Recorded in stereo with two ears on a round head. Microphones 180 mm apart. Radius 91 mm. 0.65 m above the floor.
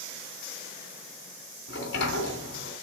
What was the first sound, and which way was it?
A sliding door, 60° left (ahead or behind).